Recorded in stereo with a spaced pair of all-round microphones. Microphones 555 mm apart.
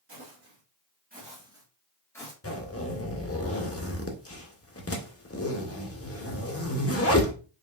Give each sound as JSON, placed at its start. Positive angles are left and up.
{"t": 0.1, "sound": "footsteps", "side_deg": -30, "distance_m": 1.8}
{"t": 2.4, "sound": "a zipper", "side_deg": 25, "distance_m": 0.7}